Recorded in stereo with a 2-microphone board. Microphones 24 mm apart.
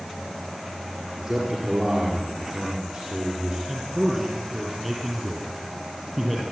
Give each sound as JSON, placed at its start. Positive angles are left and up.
{"t": 1.2, "sound": "a man speaking", "side_deg": -35, "distance_m": 5.0}
{"t": 3.7, "sound": "a man speaking", "side_deg": -10, "distance_m": 6.0}